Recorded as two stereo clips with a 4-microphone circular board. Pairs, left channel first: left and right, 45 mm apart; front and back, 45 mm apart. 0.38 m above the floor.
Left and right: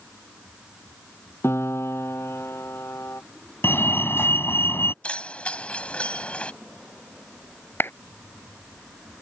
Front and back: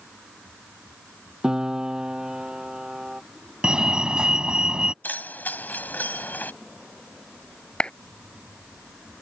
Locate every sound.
1.4 s a piano: 105° left
3.6 s a fire alarm: 110° left
5.0 s keys jangling: 35° left
7.8 s a clap: 65° left